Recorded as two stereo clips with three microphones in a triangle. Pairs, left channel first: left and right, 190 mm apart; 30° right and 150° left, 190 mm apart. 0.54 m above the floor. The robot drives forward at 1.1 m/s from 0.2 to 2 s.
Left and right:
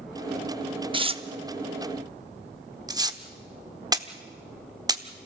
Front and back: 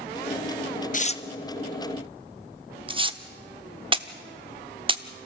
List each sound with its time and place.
0.9 s tearing paper: 40° right, 0.8 m; by 5.3 s 155° right, 1.0 m